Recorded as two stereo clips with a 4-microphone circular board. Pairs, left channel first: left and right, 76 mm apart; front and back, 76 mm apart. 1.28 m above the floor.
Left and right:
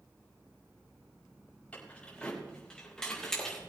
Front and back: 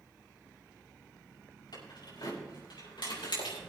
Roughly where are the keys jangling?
Ahead.